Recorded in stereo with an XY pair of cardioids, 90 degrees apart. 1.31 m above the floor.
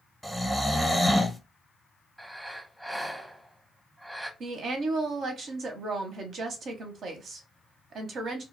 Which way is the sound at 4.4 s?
70° right.